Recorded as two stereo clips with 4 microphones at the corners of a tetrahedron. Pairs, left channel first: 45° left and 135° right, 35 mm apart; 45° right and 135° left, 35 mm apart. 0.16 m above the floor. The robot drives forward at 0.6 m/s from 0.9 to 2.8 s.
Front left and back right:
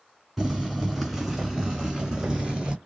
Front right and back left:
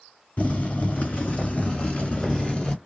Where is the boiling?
50° right, 2.5 m; by 2.8 s 85° right, 2.0 m.